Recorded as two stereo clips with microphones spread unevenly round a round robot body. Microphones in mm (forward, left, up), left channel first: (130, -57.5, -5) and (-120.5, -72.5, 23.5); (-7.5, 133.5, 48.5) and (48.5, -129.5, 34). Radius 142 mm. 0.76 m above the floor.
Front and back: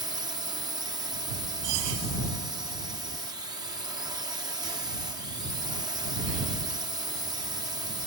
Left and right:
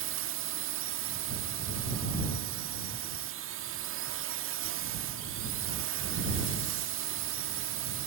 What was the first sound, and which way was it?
A drone, 100° right.